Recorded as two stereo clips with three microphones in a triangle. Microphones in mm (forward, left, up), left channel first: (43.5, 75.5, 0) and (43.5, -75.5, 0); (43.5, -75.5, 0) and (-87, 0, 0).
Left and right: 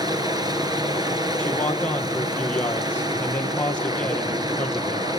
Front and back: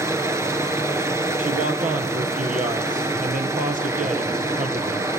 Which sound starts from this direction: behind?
A man speaking, at 1.4 s.